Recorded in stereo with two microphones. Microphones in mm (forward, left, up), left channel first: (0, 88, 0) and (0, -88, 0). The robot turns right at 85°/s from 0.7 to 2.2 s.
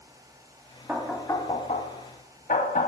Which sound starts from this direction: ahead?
Knocking, at 0.9 s.